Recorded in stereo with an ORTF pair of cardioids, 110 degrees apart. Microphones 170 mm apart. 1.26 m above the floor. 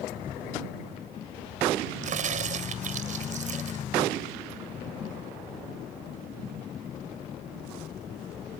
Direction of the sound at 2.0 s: 45° right.